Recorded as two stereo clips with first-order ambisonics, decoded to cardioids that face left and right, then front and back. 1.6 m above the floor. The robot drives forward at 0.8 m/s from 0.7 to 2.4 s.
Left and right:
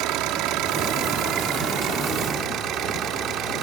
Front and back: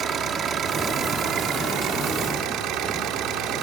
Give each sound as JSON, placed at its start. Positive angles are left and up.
{"t": 0.0, "sound": "an engine running", "azimuth_deg": -120}